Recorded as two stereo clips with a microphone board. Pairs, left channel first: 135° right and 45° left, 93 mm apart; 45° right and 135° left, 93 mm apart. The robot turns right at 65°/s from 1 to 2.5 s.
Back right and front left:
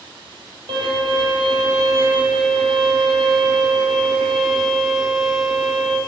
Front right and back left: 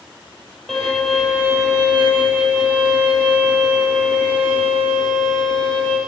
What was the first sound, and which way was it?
A violin, 40° left.